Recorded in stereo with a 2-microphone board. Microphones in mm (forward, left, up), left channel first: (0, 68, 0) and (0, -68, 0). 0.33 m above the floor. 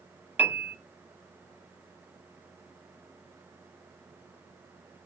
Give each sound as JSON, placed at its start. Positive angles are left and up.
{"t": 0.4, "sound": "a piano", "side_deg": -15, "distance_m": 0.9}